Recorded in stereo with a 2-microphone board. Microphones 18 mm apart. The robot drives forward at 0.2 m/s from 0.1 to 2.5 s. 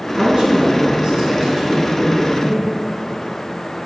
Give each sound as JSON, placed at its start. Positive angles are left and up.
{"t": 0.2, "sound": "a woman speaking", "side_deg": -45, "distance_m": 3.5}